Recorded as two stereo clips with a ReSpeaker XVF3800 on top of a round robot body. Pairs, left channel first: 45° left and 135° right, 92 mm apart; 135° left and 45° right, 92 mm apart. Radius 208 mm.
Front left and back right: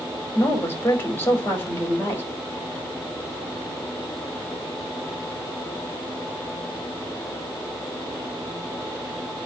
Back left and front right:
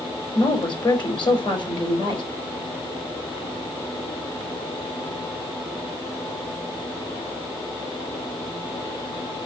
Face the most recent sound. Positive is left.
turn(degrees=110)